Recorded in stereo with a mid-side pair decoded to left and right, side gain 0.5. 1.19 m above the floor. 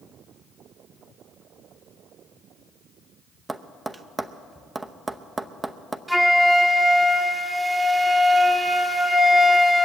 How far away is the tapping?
About 0.8 m.